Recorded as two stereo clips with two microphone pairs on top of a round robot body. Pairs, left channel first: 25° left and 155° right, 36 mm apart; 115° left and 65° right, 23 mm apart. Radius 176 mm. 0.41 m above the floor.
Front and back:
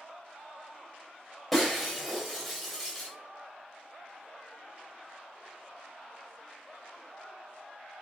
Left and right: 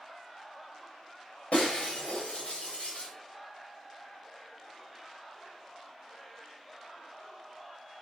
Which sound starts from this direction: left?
Breaking glass, at 1.5 s.